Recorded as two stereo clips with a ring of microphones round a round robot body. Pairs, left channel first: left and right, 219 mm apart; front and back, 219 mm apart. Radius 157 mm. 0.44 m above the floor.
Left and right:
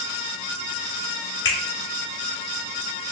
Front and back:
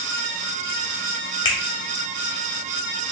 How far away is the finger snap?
About 2 m.